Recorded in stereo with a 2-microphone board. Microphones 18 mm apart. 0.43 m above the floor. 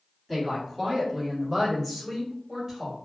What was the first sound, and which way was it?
A woman speaking, 10° right (ahead or behind).